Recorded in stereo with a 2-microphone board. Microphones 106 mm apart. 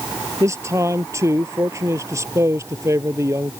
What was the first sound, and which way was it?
A man speaking, 25° right (ahead or behind).